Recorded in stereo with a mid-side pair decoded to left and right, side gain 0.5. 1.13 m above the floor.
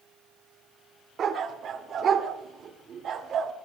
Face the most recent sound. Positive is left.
turn(degrees=-55)